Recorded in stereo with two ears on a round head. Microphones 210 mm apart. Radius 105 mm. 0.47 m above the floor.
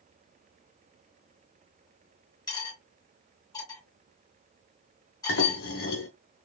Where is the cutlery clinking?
15° left (ahead or behind), 2 m.